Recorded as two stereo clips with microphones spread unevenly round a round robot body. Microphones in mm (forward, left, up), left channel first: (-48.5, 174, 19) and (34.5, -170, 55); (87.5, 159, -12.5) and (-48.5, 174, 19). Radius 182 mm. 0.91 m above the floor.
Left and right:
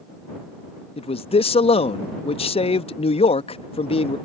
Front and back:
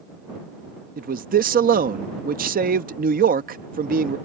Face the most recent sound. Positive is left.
turn(degrees=175)